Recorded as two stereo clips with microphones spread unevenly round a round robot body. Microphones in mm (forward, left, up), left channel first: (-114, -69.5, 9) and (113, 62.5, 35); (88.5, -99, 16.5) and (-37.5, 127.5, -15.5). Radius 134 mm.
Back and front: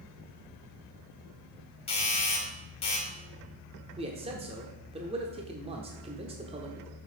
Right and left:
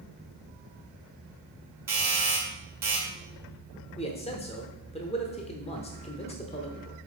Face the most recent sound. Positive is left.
turn(degrees=-15)